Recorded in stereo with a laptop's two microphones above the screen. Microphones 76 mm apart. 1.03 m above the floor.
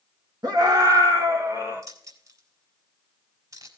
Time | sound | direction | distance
0.4 | a scream | 60° right (ahead or behind) | 1.6 m
1.8 | keys jangling | 50° right (ahead or behind) | 4 m